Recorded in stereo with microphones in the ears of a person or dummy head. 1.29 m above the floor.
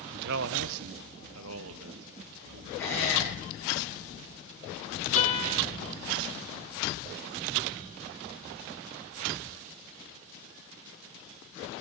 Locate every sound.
0.1 s a man speaking: 55° right (ahead or behind), 0.6 m; by 2.7 s 75° right (ahead or behind), 2 m
2.8 s a squeak: 10° left (ahead or behind), 6.5 m
5.2 s a guitar: 40° left (ahead or behind), 1.9 m